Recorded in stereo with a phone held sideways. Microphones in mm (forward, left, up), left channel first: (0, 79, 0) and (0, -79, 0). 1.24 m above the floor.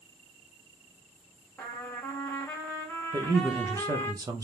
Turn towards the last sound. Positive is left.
turn(degrees=-20)  # may be behind; listen again after turning